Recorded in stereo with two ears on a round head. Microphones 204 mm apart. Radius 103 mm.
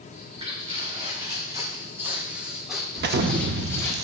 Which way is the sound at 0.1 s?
25° right (ahead or behind).